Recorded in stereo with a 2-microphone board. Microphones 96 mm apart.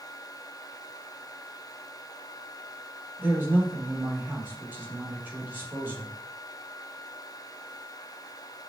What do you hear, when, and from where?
3.2 s a man speaking: 20° right (ahead or behind), 0.9 m